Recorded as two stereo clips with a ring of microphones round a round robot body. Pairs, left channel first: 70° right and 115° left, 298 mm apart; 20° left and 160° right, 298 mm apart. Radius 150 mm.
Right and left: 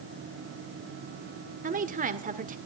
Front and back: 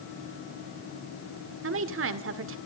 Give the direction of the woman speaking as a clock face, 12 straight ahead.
6 o'clock.